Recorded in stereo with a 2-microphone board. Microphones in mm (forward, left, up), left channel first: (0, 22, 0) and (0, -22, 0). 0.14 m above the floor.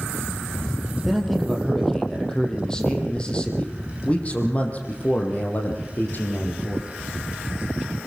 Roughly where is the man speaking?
Centre.